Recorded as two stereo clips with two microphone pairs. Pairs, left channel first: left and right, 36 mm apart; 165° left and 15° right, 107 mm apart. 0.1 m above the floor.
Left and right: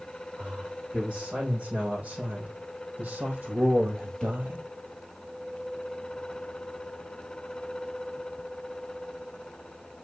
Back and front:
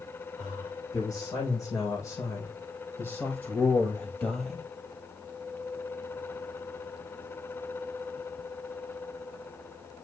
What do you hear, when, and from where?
0.4 s a man speaking: 145° right, 5.5 m; by 4.7 s 100° right, 2.5 m